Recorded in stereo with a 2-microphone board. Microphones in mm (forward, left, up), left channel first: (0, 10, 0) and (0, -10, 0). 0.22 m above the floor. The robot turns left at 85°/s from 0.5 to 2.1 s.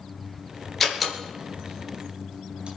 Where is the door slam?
5° left (ahead or behind), 3 m; by 2.7 s 65° right (ahead or behind), 3 m.